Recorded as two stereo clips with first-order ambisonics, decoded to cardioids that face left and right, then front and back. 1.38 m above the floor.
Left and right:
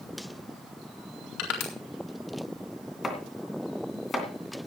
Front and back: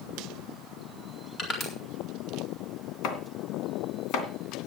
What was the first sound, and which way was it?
Crushing, 65° left.